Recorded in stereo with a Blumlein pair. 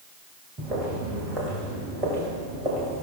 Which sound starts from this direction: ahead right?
Footsteps, at 0.6 s.